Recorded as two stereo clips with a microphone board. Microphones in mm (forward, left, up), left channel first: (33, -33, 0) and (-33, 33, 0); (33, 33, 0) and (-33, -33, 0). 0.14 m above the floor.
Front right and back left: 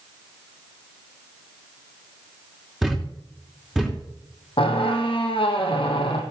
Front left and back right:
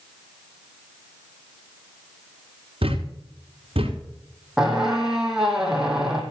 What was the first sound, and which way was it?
A thud, 140° right.